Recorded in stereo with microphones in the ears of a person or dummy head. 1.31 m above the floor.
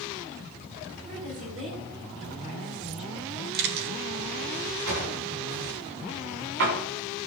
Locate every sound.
1.1 s a woman speaking: 35° right (ahead or behind), 4.5 m
3.5 s a camera shutter: 55° right (ahead or behind), 1.7 m
4.9 s a drawer: 70° right (ahead or behind), 3.5 m